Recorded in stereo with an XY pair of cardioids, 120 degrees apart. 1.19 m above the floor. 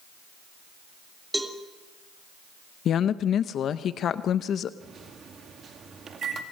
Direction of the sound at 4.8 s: 45° right.